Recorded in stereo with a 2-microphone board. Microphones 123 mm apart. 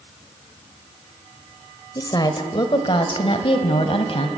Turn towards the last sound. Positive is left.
turn(degrees=55)  # may be behind; listen again after turning